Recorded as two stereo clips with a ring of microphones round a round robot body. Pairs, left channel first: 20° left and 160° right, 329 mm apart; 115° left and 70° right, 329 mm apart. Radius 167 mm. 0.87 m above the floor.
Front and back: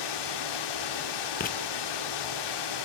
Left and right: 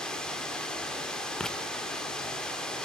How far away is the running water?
About 2.5 m.